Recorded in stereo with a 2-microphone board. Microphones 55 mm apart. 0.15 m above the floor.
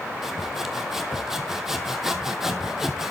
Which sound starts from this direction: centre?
Sawing, at 0.2 s.